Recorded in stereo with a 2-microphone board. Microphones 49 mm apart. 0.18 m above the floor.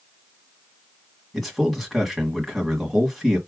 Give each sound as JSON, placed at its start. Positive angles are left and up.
{"t": 1.3, "sound": "a man speaking", "side_deg": 0, "distance_m": 1.4}